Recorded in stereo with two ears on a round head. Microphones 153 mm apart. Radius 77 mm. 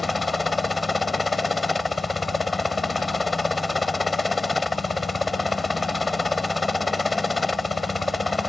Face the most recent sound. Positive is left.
turn(degrees=0)  # may be behind; listen again after turning